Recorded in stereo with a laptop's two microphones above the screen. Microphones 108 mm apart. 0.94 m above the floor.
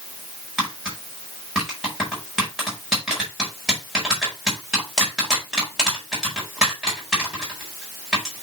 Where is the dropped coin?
I don't hear a dropped coin.